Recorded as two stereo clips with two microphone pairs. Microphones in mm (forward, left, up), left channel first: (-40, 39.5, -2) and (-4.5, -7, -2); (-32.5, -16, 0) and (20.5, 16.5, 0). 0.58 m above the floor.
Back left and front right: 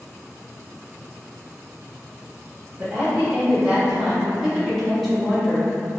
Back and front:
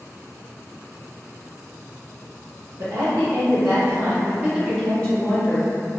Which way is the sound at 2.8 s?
20° left.